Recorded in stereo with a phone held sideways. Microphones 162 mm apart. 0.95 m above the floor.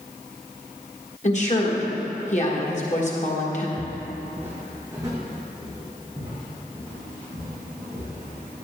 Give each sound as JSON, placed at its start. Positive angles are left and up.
{"t": 1.2, "sound": "a woman speaking", "side_deg": 45, "distance_m": 1.4}
{"t": 3.8, "sound": "footsteps", "side_deg": -5, "distance_m": 1.1}